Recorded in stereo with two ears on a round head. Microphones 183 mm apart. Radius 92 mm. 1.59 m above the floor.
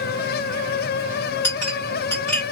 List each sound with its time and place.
1.4 s a clink: 10° left (ahead or behind), 1.9 m